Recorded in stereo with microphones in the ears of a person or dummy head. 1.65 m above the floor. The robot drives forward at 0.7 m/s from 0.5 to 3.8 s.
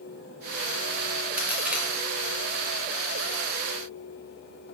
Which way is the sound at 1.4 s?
5° right (ahead or behind).